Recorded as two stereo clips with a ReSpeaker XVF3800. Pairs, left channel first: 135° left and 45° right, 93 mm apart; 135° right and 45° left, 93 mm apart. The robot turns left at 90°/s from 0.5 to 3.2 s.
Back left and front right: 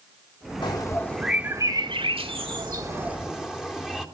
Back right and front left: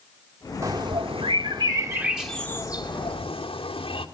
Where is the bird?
105° left, 1.7 m; by 4.0 s 130° right, 1.7 m.